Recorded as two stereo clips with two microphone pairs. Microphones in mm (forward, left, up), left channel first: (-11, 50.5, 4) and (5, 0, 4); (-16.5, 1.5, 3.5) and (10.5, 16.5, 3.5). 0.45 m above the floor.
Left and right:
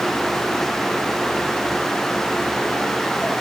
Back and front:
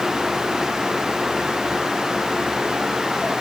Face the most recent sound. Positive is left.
No sound to turn to.